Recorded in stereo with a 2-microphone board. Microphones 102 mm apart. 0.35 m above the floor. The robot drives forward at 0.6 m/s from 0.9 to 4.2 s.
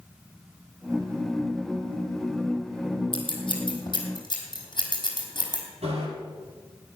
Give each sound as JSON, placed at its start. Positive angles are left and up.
{"t": 3.1, "sound": "scissors", "side_deg": 50, "distance_m": 3.5}
{"t": 5.8, "sound": "a bicycle bell", "side_deg": -85, "distance_m": 7.0}